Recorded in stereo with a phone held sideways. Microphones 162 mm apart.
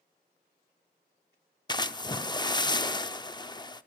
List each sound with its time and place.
1.7 s a splash: 25° left (ahead or behind), 0.5 m